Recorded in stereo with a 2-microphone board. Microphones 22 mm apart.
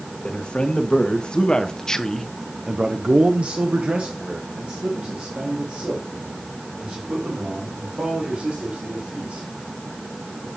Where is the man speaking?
55° left (ahead or behind), 1.7 m; by 9.4 s 75° right (ahead or behind), 4.5 m.